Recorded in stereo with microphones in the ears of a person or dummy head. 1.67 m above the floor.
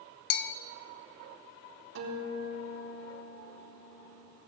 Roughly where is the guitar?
Right.